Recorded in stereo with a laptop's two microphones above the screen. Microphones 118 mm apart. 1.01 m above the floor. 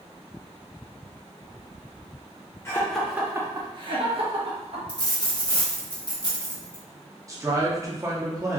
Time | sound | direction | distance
2.6 | laughter | 20° left (ahead or behind) | 0.6 m
4.9 | a dropped coin | 35° left (ahead or behind) | 0.9 m
7.3 | a man speaking | 25° right (ahead or behind) | 0.6 m